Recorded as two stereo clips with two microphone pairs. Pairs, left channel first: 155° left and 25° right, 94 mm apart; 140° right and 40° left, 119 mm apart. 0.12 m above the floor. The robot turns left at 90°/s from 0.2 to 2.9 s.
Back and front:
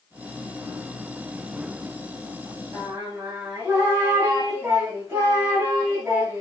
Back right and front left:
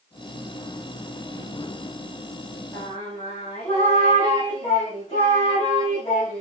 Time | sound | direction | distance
2.7 | singing | 80° right | 6.5 m